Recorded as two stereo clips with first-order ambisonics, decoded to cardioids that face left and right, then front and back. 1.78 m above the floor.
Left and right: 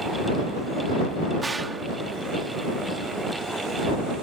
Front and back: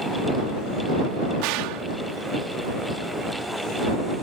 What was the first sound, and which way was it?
A gunshot, 170° right.